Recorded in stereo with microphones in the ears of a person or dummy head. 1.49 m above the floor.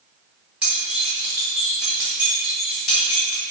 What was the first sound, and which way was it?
Keys jangling, 5° right (ahead or behind).